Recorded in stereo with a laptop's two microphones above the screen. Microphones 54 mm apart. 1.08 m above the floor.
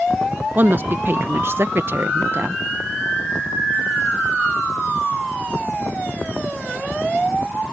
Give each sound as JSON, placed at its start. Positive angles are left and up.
{"t": 0.6, "sound": "a woman speaking", "side_deg": -40}